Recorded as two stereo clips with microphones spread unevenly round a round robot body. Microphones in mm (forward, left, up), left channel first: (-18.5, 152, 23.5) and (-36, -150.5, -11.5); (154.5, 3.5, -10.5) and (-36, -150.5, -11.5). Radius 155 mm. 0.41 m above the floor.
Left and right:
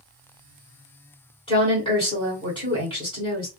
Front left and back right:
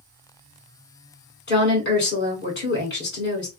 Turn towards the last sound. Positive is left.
turn(degrees=10)